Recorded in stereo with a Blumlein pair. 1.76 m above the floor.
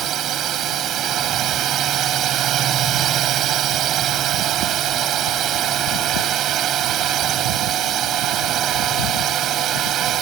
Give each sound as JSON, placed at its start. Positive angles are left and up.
{"t": 0.0, "sound": "a drone", "azimuth_deg": -30}